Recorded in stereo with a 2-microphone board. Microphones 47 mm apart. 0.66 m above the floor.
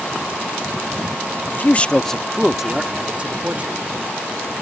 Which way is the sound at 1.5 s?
45° left (ahead or behind).